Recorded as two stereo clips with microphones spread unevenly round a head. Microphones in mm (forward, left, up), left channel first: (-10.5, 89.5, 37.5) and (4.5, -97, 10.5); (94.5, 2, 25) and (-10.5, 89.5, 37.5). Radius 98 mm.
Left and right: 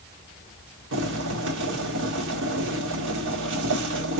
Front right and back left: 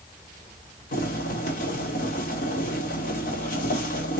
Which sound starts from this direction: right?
Boiling, at 0.9 s.